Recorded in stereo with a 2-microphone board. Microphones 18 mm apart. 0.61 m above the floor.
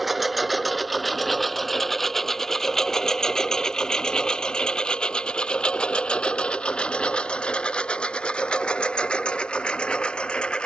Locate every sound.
0.0 s a lawn mower: 10° right (ahead or behind); by 10.7 s 80° left